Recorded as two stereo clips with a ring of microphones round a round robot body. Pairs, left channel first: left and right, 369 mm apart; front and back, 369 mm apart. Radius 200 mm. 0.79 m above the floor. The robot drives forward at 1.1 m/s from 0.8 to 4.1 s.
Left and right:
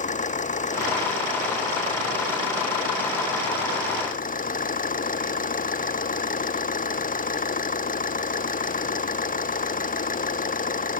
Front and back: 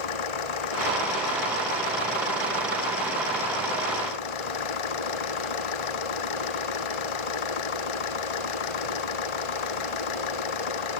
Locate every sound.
0.0 s an engine running: 20° left